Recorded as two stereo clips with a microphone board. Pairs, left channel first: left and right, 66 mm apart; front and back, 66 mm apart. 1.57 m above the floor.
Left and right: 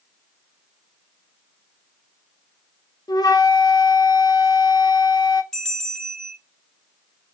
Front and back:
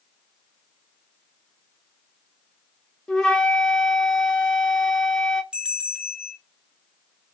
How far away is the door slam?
No door slam in this recording.